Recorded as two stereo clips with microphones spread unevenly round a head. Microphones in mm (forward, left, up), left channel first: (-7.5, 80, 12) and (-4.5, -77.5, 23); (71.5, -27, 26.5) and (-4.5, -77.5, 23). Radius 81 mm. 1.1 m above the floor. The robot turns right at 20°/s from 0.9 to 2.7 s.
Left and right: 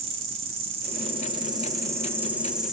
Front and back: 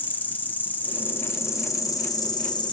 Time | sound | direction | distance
0.0 | an insect | 35° right | 0.7 m